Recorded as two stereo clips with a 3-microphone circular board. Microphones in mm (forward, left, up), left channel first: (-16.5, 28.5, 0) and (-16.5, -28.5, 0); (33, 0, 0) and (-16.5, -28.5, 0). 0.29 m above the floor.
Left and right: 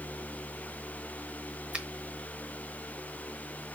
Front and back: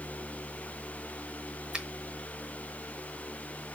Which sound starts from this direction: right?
A finger snap, at 1.7 s.